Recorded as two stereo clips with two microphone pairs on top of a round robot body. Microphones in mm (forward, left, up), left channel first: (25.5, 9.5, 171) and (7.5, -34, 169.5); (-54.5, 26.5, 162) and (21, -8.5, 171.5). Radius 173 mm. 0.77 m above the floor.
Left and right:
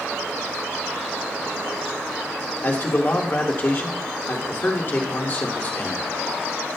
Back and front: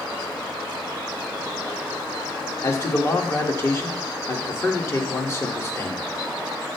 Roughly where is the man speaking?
Left.